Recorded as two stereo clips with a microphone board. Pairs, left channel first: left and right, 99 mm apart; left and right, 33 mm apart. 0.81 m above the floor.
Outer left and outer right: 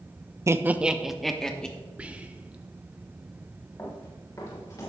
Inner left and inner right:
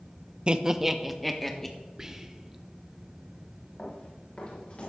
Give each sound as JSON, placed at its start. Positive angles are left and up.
{"t": 0.5, "sound": "laughter", "side_deg": -30, "distance_m": 0.5}
{"t": 2.0, "sound": "whispering", "side_deg": -10, "distance_m": 0.7}
{"t": 3.8, "sound": "running footsteps", "side_deg": 30, "distance_m": 4.5}